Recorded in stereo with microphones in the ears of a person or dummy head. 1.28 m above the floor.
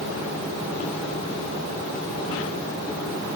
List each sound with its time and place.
Only background noise.